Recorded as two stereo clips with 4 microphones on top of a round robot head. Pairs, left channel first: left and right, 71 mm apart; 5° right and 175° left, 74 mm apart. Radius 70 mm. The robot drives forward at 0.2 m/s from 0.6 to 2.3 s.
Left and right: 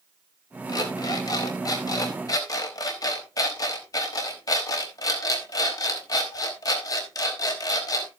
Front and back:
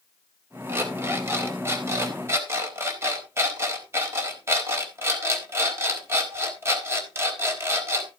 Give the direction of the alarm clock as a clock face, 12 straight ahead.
8 o'clock.